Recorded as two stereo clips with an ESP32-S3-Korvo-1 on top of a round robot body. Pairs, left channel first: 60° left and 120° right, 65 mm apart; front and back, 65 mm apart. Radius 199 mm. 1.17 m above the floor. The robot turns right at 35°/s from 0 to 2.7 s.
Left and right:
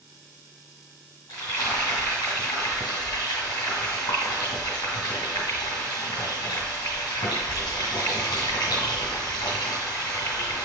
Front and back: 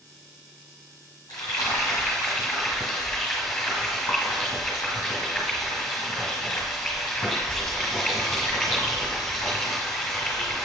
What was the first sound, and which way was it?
Frying, 25° left.